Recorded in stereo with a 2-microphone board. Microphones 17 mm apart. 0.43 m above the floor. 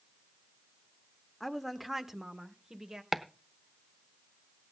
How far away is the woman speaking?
About 0.8 m.